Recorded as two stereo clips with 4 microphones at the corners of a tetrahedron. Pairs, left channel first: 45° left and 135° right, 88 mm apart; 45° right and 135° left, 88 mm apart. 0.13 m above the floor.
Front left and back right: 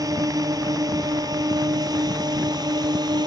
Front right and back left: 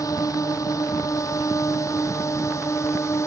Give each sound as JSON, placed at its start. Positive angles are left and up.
{"t": 0.0, "sound": "a drone", "azimuth_deg": -90}